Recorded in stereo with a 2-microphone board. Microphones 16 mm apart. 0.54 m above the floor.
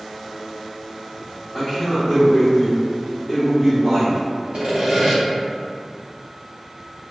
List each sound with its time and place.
1.5 s a man speaking: 20° left (ahead or behind), 1.0 m
4.5 s sawing: 55° right (ahead or behind), 1.2 m